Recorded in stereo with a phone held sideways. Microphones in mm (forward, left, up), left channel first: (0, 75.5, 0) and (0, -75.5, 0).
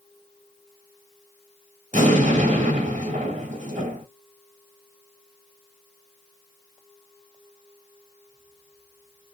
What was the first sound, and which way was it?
An explosion, 50° right (ahead or behind).